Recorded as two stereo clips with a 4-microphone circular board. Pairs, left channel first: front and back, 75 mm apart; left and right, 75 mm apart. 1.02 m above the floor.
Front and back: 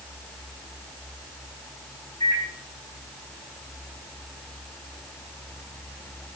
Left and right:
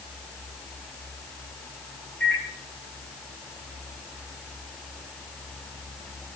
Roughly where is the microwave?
Ahead.